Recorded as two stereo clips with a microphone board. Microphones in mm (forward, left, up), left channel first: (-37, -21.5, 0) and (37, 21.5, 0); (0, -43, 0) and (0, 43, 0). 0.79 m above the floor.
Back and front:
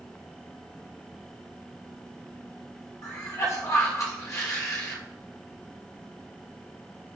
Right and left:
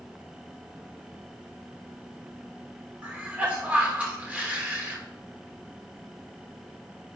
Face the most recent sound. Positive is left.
turn(degrees=165)